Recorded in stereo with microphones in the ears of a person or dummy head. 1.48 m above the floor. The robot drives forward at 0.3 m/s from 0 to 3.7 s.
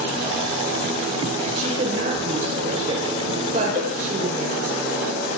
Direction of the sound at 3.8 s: 15° right (ahead or behind).